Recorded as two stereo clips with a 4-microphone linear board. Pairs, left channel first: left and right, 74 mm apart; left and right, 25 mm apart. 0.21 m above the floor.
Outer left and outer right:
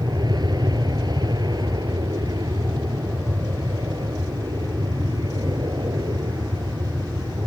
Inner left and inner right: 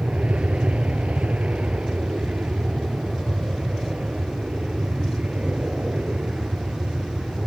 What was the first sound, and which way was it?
An aircraft, 70° right (ahead or behind).